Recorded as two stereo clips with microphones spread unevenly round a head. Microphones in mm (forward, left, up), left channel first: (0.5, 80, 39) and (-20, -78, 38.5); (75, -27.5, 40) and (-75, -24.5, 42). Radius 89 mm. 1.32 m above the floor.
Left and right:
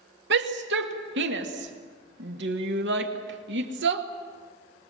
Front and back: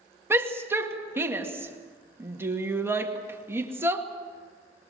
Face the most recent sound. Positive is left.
turn(degrees=-105)